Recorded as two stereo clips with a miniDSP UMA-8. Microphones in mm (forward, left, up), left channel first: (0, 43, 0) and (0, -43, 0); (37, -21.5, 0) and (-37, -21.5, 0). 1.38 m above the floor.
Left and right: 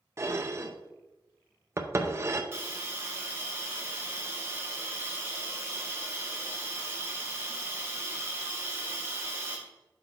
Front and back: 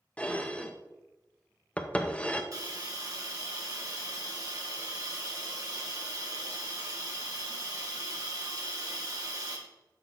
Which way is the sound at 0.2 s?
60° right.